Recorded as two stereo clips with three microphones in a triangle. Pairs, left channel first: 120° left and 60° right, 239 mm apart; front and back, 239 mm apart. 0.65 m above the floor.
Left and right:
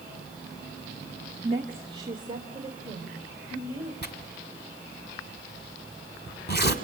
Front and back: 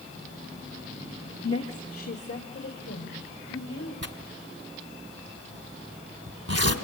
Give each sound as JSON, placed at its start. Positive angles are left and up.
{"t": 1.4, "sound": "a woman speaking", "azimuth_deg": 0, "distance_m": 1.0}
{"t": 4.0, "sound": "tearing paper", "azimuth_deg": 165, "distance_m": 1.7}